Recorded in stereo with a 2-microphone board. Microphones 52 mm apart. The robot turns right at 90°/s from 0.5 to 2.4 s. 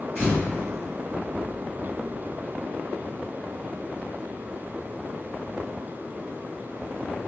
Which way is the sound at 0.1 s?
45° left (ahead or behind).